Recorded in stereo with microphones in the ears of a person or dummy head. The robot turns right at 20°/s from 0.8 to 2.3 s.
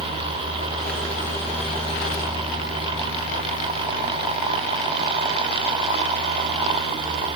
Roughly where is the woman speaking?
I don't hear a woman speaking.